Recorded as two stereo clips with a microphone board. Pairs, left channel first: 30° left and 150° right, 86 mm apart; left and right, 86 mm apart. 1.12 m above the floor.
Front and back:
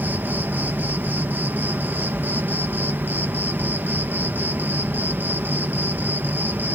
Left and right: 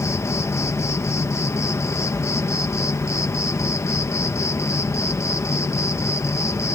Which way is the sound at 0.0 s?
145° left.